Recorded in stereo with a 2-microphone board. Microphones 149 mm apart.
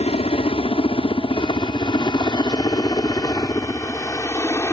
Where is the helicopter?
40° left (ahead or behind); by 4.7 s 15° left (ahead or behind).